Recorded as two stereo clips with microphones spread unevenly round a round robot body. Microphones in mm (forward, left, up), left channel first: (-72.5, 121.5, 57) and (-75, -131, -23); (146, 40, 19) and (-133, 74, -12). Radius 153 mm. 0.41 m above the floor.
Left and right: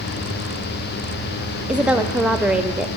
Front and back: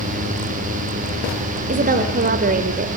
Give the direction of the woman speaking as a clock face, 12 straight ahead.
5 o'clock.